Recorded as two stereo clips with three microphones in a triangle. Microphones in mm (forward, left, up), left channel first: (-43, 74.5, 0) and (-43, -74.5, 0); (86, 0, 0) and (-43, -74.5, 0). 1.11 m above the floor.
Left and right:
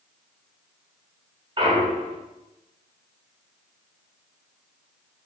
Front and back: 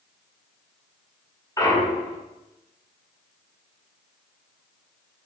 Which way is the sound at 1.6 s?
40° right.